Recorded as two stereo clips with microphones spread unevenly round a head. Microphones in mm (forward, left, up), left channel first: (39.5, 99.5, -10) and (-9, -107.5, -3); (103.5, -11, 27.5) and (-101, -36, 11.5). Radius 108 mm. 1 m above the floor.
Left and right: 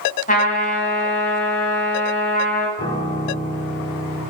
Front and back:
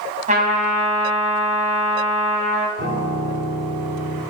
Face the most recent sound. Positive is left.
turn(degrees=140)